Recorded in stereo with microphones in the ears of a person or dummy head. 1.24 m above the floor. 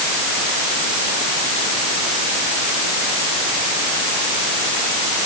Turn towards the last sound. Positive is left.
No sound to turn to.